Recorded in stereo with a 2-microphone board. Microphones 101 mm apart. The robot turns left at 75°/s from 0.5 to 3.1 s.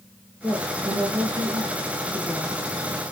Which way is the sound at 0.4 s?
25° right.